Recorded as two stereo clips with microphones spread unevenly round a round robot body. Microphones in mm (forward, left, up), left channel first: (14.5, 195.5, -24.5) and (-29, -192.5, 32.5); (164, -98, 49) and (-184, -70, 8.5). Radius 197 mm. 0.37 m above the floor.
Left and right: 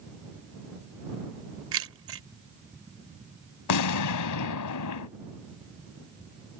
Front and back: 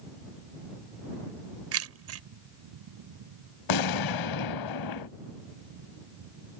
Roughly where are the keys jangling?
Behind right.